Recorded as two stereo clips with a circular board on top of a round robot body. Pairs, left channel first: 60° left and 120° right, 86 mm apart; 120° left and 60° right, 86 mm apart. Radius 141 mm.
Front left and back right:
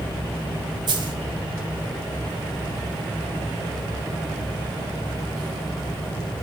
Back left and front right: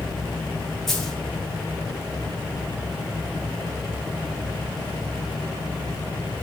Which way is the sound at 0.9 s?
155° right.